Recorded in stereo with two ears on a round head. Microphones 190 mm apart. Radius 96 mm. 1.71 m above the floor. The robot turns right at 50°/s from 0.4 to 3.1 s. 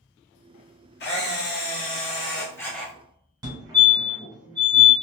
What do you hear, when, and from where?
1.0 s a camera shutter: 85° left, 1.0 m; by 2.9 s straight behind, 1.0 m
3.4 s a fire alarm: 20° right (ahead or behind), 1.9 m